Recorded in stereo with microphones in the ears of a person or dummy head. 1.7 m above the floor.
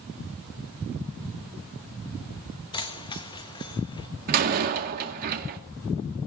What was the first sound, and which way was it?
Keys jangling, 20° left (ahead or behind).